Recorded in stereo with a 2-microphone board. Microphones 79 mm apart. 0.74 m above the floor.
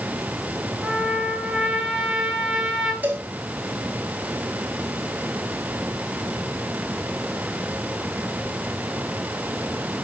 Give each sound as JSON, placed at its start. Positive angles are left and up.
{"t": 0.8, "sound": "a trumpet", "side_deg": -5, "distance_m": 2.5}
{"t": 3.0, "sound": "a cowbell", "side_deg": -25, "distance_m": 2.5}